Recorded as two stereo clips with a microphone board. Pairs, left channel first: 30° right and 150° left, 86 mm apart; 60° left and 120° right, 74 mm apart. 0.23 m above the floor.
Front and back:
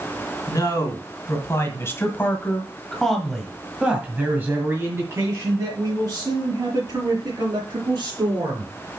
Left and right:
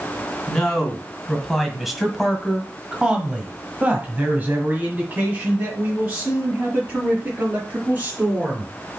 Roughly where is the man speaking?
Ahead.